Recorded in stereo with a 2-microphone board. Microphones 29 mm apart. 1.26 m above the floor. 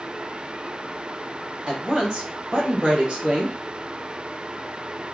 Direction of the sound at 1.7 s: 30° right (ahead or behind).